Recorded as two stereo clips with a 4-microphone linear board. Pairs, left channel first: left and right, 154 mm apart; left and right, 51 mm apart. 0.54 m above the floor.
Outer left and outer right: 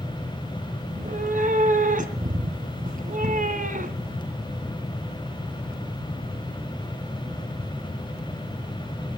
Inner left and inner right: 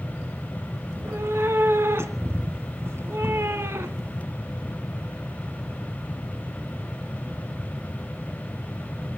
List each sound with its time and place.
0.9 s a cat meowing: 60° right (ahead or behind), 2.0 m